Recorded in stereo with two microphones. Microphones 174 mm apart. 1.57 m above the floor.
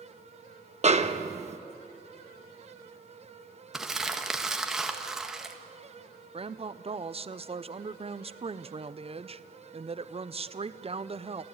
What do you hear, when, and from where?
0.8 s a snare drum: 40° right (ahead or behind), 1.0 m
3.7 s crumpling: 5° right (ahead or behind), 1.6 m
6.3 s a woman speaking: 35° right (ahead or behind), 0.6 m